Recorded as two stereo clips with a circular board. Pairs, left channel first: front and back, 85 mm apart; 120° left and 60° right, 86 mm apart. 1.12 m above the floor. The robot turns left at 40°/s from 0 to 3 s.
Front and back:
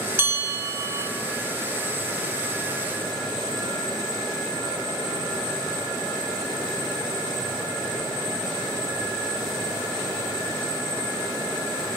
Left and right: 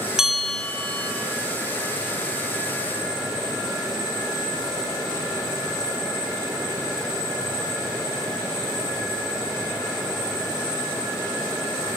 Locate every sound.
0.2 s a bell: 140° right, 1.1 m; by 1.1 s 175° right, 1.1 m